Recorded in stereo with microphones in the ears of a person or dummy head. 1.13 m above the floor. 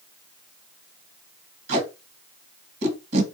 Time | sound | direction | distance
1.7 | tape being pulled | 45° right (ahead or behind) | 1.2 m